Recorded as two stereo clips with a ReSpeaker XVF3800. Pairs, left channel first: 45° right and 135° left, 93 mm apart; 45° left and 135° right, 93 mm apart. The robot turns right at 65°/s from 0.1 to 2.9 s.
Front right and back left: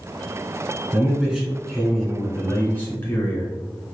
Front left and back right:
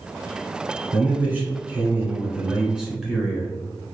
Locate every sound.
0.9 s a man speaking: 175° left, 1.1 m; by 3.5 s 60° right, 1.1 m